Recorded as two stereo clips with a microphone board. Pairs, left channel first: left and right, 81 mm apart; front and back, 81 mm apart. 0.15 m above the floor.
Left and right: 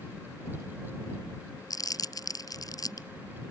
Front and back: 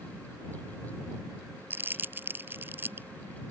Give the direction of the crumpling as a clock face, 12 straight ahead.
8 o'clock.